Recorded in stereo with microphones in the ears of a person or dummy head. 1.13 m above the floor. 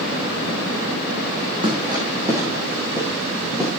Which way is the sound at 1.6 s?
25° right (ahead or behind).